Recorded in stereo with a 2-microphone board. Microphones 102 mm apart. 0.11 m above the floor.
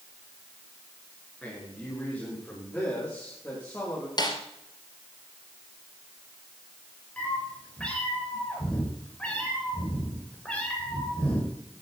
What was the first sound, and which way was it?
A man speaking, 10° left (ahead or behind).